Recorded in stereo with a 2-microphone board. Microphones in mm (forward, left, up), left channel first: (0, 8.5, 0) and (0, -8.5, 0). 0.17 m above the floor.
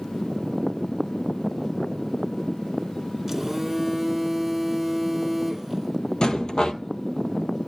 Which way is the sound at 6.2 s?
45° left (ahead or behind).